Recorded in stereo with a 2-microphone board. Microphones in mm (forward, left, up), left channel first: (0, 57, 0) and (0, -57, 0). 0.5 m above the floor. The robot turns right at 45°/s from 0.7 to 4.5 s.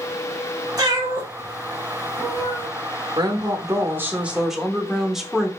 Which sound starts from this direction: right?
A cat meowing, at 0.8 s.